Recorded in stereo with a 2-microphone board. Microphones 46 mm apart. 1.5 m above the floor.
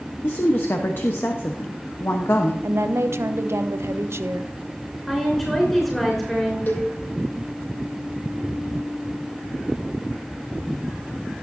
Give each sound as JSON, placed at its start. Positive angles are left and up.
{"t": 0.2, "sound": "a woman speaking", "side_deg": 50, "distance_m": 1.0}
{"t": 2.6, "sound": "a woman speaking", "side_deg": -65, "distance_m": 0.8}
{"t": 5.1, "sound": "a woman speaking", "side_deg": 5, "distance_m": 5.0}
{"t": 6.7, "sound": "a cowbell", "side_deg": 40, "distance_m": 1.9}